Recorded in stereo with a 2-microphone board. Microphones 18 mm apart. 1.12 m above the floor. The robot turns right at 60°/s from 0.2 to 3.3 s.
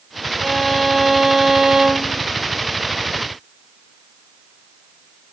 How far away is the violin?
About 1.7 m.